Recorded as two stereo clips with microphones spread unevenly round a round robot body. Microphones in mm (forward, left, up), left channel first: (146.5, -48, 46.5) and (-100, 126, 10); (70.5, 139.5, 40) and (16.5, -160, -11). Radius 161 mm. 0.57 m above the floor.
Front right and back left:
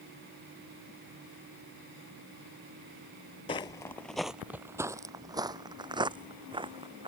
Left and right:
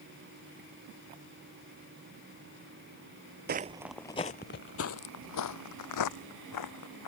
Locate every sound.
3.5 s footsteps: 65° right; by 7.1 s 70° left